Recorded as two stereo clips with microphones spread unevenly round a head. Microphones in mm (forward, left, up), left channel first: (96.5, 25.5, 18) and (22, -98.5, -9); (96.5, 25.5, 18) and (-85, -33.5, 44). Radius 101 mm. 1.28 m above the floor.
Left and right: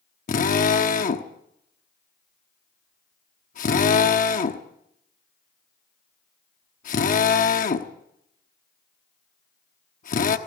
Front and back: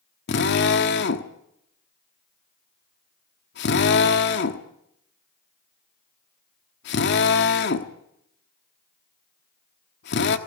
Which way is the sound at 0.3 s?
55° left.